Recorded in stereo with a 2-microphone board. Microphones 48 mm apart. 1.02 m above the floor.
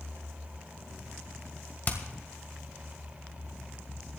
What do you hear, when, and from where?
1.9 s hammering: 35° left (ahead or behind), 1.9 m